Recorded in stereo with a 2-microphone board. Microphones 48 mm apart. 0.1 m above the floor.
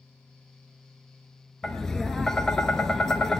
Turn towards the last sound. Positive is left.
turn(degrees=10)  # may be behind; listen again after turning